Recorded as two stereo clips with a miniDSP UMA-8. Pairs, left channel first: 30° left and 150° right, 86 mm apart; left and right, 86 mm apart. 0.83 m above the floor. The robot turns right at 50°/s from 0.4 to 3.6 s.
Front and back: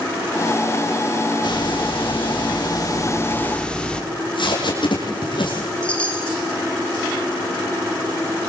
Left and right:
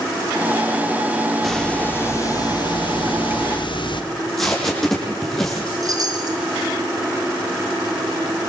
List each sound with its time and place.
1.4 s a hiss: straight ahead, 1.8 m; by 4.0 s 110° left, 1.8 m
4.1 s tape being pulled: 5° left, 7 m
5.8 s a chime: 45° right, 2.5 m